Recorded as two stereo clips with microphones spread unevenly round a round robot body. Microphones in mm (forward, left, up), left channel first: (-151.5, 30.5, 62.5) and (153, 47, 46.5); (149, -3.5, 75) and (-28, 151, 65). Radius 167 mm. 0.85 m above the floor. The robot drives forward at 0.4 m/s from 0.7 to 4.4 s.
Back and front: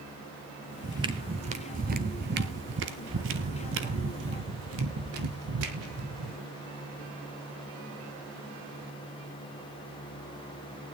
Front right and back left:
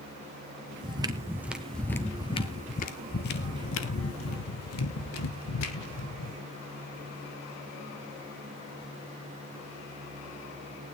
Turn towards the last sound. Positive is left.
turn(degrees=-40)